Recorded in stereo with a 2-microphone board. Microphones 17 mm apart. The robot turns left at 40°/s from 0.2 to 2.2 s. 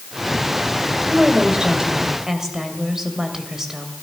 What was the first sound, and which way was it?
A woman speaking, 105° right.